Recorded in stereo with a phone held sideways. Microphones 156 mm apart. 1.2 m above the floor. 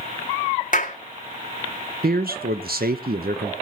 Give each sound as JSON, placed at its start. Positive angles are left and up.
{"t": 0.7, "sound": "a clap", "side_deg": 55, "distance_m": 1.9}
{"t": 2.0, "sound": "a man speaking", "side_deg": -75, "distance_m": 0.9}